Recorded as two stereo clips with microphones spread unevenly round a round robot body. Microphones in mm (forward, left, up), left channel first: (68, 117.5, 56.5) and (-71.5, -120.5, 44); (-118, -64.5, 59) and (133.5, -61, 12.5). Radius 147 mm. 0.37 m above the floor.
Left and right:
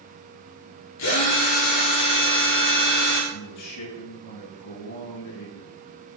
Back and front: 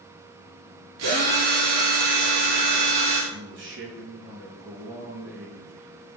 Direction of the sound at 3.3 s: 45° left.